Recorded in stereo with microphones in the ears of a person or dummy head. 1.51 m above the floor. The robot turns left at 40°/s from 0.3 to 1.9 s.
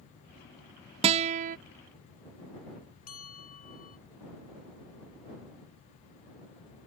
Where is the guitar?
30° right (ahead or behind); by 1.6 s 45° right (ahead or behind).